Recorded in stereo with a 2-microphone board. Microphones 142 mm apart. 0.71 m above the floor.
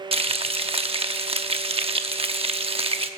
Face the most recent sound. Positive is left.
turn(degrees=-40)  # may be behind; listen again after turning